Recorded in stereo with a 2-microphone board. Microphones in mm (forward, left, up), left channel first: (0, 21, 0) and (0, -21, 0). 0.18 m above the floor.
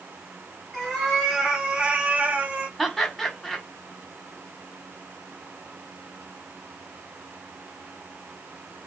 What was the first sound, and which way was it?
A cat meowing, 5° right (ahead or behind).